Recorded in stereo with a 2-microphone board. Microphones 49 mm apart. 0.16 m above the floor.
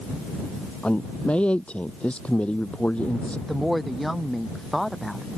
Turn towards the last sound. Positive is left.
turn(degrees=0)  # may be behind; listen again after turning